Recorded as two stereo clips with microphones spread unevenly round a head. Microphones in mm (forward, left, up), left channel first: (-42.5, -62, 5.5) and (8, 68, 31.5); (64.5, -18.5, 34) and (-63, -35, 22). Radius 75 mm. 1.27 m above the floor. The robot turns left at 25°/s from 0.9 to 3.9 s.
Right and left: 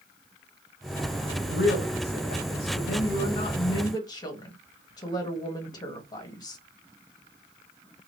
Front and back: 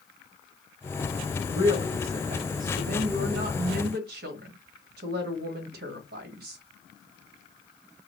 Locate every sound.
1.5 s a woman speaking: 115° right, 1.2 m; by 6.6 s 175° right, 1.2 m